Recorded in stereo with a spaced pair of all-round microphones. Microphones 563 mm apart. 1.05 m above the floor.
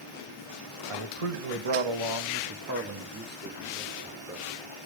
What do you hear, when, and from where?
0.9 s a man speaking: 75° right (ahead or behind), 1.5 m; by 4.6 s 5° right (ahead or behind), 3.5 m